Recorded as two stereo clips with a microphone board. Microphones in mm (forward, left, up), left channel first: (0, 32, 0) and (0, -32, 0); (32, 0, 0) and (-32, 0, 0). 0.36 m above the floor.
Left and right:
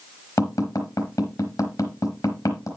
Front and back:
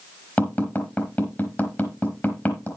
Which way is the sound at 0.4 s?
60° left.